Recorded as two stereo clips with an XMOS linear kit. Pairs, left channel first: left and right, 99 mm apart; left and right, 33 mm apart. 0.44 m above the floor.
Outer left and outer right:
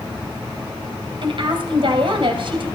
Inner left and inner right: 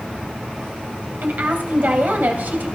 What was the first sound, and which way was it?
A woman speaking, 60° right (ahead or behind).